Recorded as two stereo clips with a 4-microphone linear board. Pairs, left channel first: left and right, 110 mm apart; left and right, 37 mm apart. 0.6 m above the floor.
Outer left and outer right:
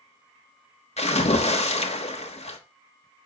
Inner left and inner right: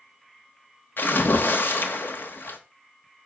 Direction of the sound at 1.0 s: 75° left (ahead or behind).